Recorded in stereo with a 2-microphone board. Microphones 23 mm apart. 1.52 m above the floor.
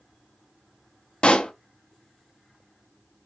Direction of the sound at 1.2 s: 55° left (ahead or behind).